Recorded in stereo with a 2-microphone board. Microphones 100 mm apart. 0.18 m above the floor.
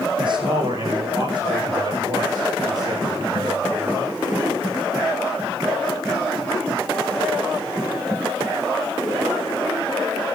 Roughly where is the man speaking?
Right.